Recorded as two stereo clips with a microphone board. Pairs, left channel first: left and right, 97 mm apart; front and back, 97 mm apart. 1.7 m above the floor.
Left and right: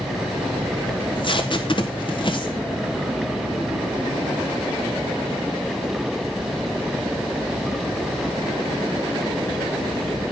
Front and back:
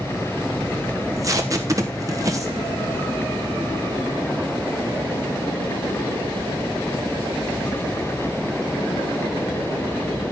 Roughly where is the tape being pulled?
Behind left.